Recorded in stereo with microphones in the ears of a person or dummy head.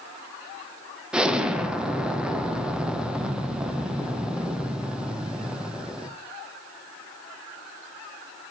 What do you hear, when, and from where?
1.1 s an explosion: 10° right (ahead or behind), 0.6 m